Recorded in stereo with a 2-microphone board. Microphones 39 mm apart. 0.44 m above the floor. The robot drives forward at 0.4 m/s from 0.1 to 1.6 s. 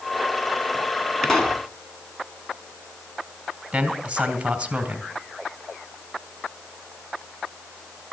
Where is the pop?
5° left (ahead or behind), 2.5 m.